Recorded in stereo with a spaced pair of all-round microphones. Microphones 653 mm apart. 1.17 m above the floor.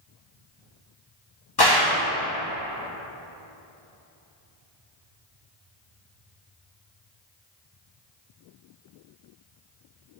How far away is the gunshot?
About 0.9 m.